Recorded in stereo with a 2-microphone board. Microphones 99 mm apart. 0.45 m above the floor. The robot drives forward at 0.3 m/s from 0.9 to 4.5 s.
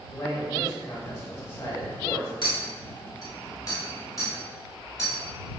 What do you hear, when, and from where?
0.1 s a man speaking: 25° left (ahead or behind), 1.0 m; by 2.3 s 20° left (ahead or behind), 1.2 m
2.4 s a clink: 55° left (ahead or behind), 0.7 m; by 5.2 s 35° left (ahead or behind), 1.1 m